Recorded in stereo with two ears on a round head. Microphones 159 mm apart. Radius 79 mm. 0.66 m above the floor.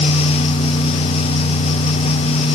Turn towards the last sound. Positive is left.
No sound to turn to.